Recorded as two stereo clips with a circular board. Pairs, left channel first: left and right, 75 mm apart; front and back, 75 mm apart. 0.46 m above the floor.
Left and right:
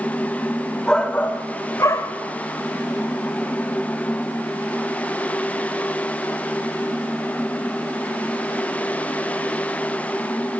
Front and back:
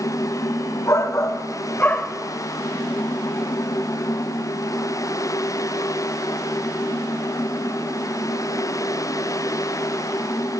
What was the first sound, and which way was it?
A shout, 15° left.